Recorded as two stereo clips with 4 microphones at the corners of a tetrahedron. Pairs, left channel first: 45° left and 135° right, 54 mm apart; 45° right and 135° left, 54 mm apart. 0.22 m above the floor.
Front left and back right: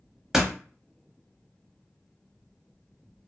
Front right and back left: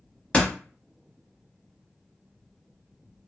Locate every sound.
0.3 s a door slam: 65° right, 0.8 m